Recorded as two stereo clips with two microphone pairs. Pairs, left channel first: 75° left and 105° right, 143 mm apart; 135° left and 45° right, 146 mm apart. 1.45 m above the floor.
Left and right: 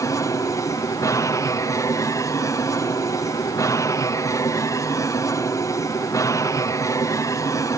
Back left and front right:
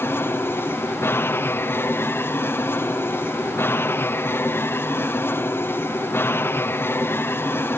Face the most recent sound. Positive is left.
turn(degrees=90)